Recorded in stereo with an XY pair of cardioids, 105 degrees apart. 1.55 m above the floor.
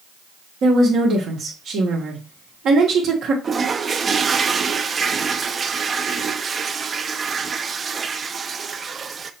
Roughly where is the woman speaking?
Ahead right.